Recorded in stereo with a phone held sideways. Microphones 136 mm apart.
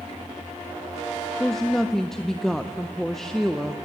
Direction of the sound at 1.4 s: 5° left (ahead or behind).